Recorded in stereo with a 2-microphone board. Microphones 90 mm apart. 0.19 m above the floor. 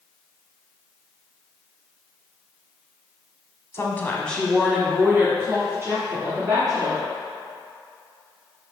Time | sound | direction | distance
3.7 | a woman speaking | 30° left (ahead or behind) | 1.1 m